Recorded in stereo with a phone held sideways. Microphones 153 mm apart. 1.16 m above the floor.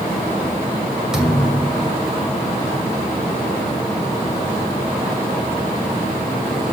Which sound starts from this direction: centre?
A thud, at 1.1 s.